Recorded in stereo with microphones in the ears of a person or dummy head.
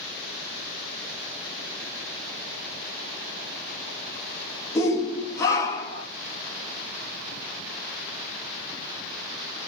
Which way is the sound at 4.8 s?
15° left (ahead or behind).